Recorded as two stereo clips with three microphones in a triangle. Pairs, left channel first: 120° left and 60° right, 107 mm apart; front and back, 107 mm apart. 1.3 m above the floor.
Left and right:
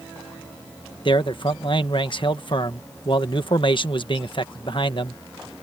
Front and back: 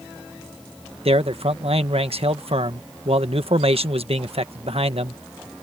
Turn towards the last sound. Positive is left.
turn(degrees=160)